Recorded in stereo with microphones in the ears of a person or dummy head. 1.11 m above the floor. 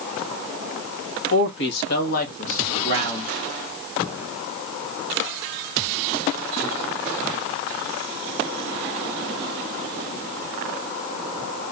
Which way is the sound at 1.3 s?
60° left (ahead or behind).